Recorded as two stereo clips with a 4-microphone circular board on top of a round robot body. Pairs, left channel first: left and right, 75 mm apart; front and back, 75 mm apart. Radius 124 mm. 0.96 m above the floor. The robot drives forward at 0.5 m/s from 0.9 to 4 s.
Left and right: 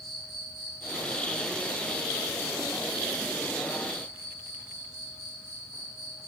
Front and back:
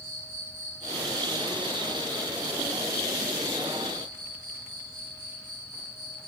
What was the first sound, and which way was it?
An insect, 175° left.